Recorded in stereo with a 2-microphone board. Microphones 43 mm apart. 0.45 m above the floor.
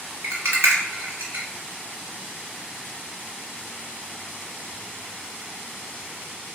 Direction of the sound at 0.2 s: 80° right.